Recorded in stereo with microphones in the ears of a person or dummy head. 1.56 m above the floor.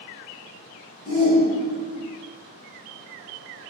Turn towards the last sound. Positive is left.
turn(degrees=40)  # may be behind; listen again after turning